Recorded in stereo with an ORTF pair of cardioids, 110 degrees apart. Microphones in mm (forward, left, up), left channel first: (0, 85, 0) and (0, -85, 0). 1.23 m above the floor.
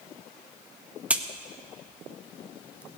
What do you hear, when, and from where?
1.1 s a crack: 5° right, 0.8 m